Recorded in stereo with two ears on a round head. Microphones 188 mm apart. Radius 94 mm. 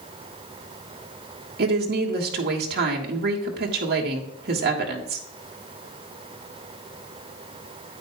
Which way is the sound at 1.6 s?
50° right (ahead or behind).